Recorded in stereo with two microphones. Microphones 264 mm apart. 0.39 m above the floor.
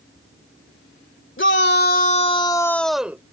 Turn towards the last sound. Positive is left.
turn(degrees=-10)  # may be behind; listen again after turning